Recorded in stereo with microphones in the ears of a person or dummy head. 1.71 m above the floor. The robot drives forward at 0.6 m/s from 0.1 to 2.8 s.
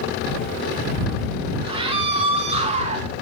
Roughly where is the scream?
Right.